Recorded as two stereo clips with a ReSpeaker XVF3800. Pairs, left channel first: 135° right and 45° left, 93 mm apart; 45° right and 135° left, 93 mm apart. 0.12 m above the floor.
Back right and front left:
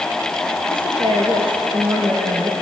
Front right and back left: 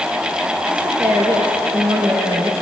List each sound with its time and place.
0.7 s a woman speaking: 65° left, 3 m